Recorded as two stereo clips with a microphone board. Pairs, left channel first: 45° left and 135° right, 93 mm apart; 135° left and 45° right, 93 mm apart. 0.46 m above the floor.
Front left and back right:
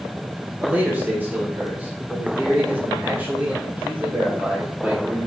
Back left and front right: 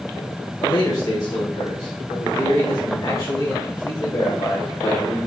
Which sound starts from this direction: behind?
A man speaking, at 0.6 s.